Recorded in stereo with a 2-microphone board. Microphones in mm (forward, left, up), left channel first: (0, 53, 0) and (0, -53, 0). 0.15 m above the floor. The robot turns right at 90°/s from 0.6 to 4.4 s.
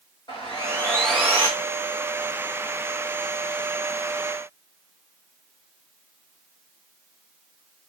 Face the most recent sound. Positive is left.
turn(degrees=115)